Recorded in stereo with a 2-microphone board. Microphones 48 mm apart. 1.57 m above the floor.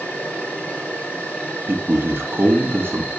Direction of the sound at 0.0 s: 25° left (ahead or behind).